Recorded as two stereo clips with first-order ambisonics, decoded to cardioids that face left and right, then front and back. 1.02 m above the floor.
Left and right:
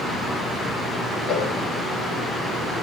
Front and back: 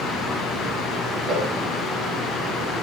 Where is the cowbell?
140° left, 1.3 m.